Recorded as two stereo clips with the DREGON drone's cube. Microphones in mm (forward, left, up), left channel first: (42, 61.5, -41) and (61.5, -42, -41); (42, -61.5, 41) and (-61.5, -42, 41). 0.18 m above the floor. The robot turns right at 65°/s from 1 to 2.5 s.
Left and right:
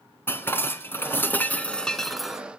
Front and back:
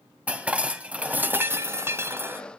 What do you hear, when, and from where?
0.3 s dishes clattering: 115° left, 1.0 m; by 2.4 s 155° right, 1.0 m